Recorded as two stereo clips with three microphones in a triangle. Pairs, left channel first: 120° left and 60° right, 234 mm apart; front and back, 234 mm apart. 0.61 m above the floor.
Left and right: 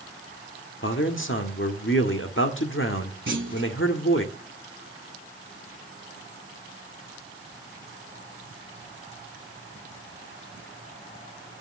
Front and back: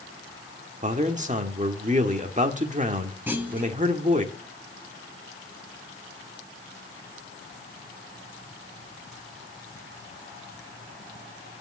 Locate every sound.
0.8 s a man speaking: 125° left, 1.5 m
3.3 s a clunk: 100° right, 1.4 m